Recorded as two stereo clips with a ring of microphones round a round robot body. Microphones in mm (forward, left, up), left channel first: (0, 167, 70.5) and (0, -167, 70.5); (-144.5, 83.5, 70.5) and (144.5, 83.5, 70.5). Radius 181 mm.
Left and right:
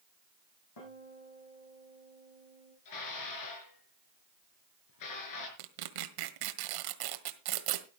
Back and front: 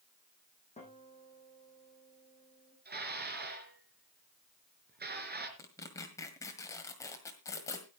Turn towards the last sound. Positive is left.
turn(degrees=-100)